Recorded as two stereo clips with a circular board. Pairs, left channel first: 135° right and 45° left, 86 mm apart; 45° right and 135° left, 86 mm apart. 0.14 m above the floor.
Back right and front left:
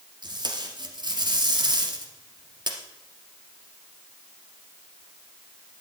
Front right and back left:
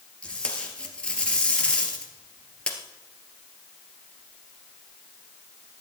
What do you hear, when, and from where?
0.2 s tape being pulled: 30° left, 2 m